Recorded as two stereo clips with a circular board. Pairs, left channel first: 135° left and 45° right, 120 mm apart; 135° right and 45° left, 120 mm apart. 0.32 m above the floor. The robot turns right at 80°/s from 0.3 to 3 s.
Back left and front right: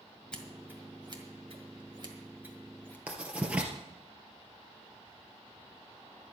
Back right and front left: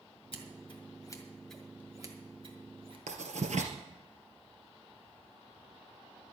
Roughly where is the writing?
Ahead left.